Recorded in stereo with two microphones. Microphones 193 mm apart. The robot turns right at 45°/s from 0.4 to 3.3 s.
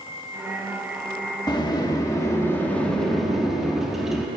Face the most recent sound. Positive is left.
turn(degrees=0)  # may be behind; listen again after turning